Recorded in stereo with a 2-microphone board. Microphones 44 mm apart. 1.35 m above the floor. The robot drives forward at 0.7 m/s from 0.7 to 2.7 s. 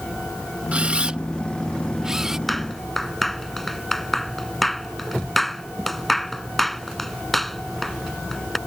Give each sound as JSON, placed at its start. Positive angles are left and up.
{"t": 0.7, "sound": "a camera shutter", "side_deg": -30}
{"t": 2.5, "sound": "a clap", "side_deg": 0}